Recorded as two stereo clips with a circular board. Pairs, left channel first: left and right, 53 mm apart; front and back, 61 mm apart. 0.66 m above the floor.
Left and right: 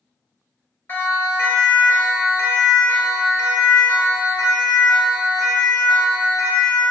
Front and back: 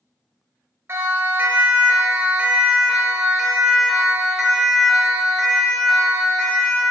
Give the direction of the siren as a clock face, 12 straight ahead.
8 o'clock.